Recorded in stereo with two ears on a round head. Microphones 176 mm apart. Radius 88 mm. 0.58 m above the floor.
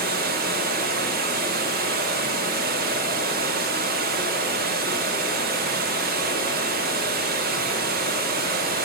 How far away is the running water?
About 0.9 m.